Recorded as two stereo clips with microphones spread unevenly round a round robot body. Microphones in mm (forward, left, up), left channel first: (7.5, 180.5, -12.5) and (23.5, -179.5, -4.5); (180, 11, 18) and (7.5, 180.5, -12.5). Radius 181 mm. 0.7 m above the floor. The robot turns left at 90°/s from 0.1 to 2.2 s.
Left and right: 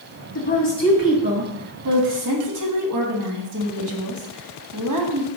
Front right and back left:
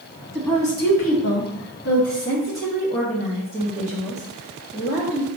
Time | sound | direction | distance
0.3 | a woman speaking | 60° left | 1.0 m